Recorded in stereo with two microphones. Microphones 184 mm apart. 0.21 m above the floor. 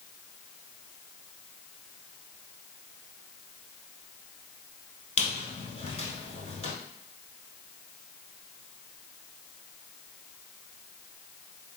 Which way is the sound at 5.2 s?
40° left (ahead or behind).